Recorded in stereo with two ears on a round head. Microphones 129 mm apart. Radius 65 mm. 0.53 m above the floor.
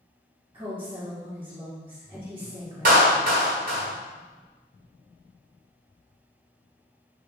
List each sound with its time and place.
0.5 s a woman speaking: 35° right (ahead or behind), 1.6 m
2.9 s a clap: 70° right (ahead or behind), 1.4 m